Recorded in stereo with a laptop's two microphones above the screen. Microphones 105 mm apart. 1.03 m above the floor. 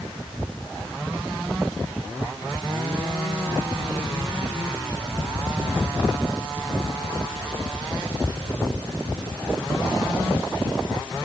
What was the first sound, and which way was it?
Only background noise.